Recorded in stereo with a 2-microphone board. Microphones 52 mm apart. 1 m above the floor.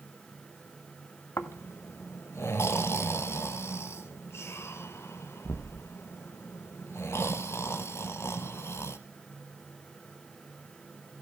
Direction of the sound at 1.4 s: 60° left (ahead or behind).